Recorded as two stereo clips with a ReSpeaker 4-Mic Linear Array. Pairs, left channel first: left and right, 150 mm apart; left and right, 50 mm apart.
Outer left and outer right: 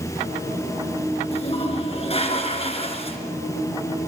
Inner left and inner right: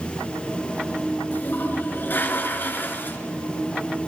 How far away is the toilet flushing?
About 2.5 m.